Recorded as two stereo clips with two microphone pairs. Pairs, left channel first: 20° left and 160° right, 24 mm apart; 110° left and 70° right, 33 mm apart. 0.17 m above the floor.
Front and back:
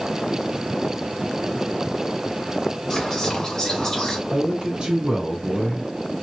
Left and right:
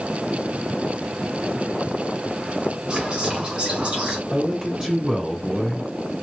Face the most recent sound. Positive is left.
turn(degrees=-135)